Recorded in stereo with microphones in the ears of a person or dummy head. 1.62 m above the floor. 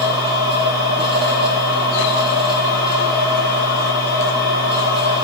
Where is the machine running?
30° right (ahead or behind), 2 m.